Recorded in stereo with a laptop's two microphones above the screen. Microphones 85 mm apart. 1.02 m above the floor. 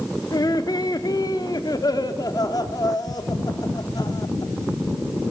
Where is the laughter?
50° left (ahead or behind), 1.9 m.